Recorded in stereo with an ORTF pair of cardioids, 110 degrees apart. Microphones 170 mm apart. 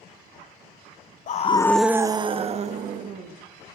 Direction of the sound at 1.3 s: 50° left.